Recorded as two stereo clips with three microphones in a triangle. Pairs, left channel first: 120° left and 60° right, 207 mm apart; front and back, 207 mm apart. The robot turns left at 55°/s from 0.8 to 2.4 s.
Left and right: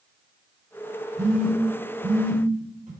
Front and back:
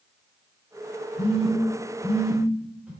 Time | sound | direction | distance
1.2 | a phone buzzing | 35° right | 0.9 m